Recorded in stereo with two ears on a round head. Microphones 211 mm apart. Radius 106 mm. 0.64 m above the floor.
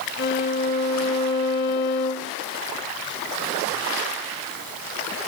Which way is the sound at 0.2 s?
50° left (ahead or behind).